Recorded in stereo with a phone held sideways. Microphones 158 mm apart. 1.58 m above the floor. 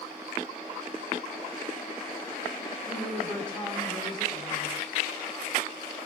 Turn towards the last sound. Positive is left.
turn(degrees=5)  # may be behind; listen again after turning